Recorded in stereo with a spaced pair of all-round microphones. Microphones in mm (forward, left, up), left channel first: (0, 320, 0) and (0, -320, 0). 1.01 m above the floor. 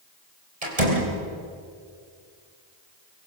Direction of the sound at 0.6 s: 65° right (ahead or behind).